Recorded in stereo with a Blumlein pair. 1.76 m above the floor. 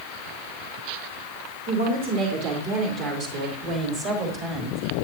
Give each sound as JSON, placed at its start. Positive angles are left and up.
{"t": 1.7, "sound": "a woman speaking", "azimuth_deg": -55, "distance_m": 5.5}